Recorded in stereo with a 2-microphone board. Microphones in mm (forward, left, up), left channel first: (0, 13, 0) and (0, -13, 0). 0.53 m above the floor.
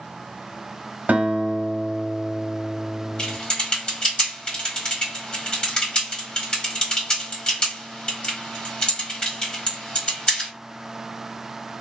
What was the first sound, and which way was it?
A guitar, 75° right (ahead or behind).